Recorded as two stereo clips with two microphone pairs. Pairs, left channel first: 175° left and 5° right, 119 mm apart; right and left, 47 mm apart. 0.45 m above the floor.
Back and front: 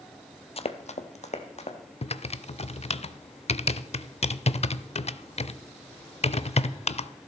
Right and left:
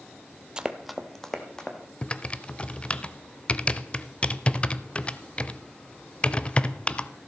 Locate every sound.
0.6 s running footsteps: 155° left, 0.7 m; by 1.8 s 165° right, 2.0 m
2.0 s typing on a keyboard: 160° right, 0.5 m